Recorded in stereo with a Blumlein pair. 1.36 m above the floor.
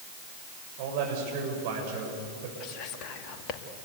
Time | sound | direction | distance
0.8 | a man speaking | 50° right | 7.5 m
2.6 | whispering | 35° left | 2.5 m